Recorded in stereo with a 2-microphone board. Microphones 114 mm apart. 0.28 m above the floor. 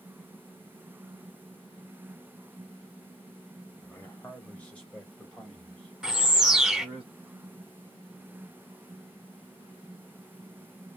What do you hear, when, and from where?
3.8 s a man speaking: 15° left (ahead or behind), 1.4 m; by 7.0 s centre (ahead or behind), 2.5 m
6.0 s a bird: 5° right (ahead or behind), 0.6 m